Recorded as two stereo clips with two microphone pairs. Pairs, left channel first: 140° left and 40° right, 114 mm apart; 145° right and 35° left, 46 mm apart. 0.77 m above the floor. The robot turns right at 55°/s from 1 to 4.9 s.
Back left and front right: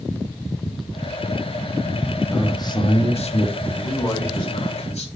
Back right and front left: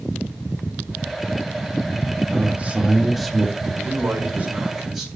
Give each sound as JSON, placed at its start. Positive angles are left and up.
{"t": 2.3, "sound": "a man speaking", "azimuth_deg": 75, "distance_m": 2.5}
{"t": 3.6, "sound": "a man speaking", "azimuth_deg": 50, "distance_m": 4.5}